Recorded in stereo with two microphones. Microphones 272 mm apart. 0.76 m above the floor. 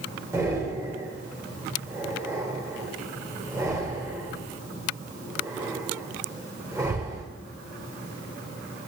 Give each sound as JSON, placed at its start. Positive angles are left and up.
{"t": 0.3, "sound": "breathing", "side_deg": -10, "distance_m": 3.0}